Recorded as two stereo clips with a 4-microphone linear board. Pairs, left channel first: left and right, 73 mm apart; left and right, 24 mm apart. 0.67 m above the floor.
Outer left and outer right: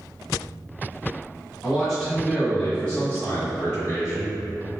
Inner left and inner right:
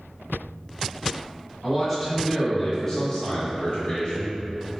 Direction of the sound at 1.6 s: 5° right (ahead or behind).